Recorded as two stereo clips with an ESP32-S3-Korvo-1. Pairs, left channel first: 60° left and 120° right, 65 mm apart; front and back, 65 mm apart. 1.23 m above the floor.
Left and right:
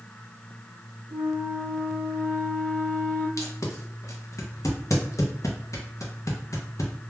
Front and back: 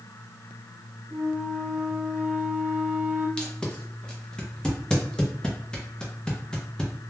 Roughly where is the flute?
Left.